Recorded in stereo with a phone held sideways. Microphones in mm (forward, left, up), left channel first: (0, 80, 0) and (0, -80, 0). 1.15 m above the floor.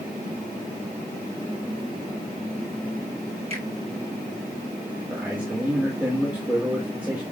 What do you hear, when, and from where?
3.5 s a finger snap: 40° right (ahead or behind), 5 m
5.1 s a man speaking: 10° right (ahead or behind), 2.5 m